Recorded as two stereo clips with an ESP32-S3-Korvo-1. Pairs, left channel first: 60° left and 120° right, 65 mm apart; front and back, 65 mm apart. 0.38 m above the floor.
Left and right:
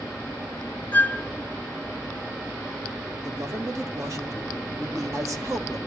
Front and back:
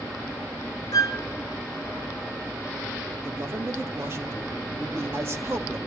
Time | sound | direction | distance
0.9 | a flute | straight ahead | 0.6 m
3.2 | a man speaking | 135° right | 1.9 m